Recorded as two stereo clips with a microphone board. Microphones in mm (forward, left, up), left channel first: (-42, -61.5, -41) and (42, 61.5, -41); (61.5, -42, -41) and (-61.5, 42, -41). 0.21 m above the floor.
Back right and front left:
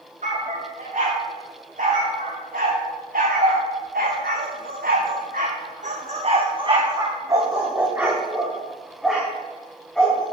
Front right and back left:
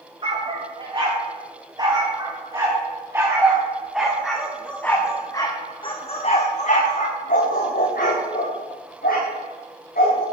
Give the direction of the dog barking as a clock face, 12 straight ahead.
9 o'clock.